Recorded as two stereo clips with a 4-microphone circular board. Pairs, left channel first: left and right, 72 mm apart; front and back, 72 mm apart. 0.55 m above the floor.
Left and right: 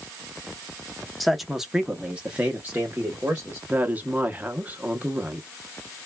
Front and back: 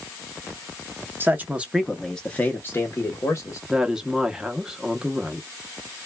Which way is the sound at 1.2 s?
Straight behind.